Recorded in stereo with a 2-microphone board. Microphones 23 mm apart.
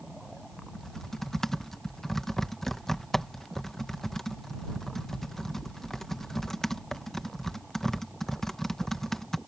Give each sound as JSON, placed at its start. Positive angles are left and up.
{"t": 0.7, "sound": "typing on a keyboard", "side_deg": 15}